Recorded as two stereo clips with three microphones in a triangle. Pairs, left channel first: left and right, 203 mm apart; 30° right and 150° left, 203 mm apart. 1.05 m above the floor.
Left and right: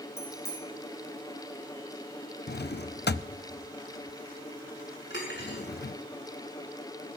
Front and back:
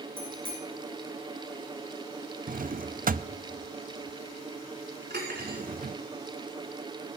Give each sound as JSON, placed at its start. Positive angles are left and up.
{"t": 0.2, "sound": "a bicycle bell", "azimuth_deg": 165, "distance_m": 7.5}
{"t": 2.5, "sound": "a drawer", "azimuth_deg": 115, "distance_m": 0.5}
{"t": 5.1, "sound": "cutlery clinking", "azimuth_deg": 115, "distance_m": 6.5}